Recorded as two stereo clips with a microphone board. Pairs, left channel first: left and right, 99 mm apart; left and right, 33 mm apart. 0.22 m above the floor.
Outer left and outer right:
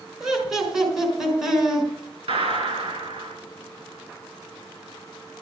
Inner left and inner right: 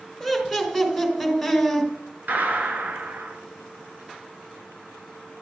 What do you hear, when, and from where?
0.2 s laughter: 5° right (ahead or behind), 3 m
2.3 s a gunshot: 70° right (ahead or behind), 1.5 m